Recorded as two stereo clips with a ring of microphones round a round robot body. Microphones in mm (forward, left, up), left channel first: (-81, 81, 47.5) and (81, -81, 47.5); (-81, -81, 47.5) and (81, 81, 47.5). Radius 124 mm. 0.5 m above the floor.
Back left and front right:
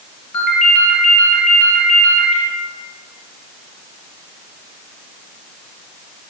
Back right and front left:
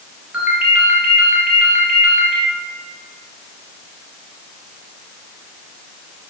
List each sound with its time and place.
0.3 s a ringtone: 130° left, 4.5 m